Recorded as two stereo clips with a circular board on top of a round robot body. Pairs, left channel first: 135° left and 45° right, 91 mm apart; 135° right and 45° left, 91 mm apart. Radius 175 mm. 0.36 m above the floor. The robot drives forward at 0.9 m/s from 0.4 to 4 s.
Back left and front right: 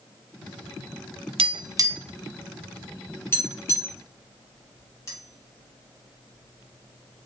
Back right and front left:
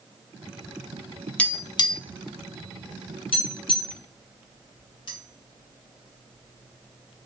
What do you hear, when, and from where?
1.4 s tapping: 60° right, 0.6 m; by 7.3 s 165° right, 2 m